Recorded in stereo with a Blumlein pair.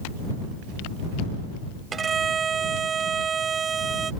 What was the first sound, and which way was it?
A violin, 20° right.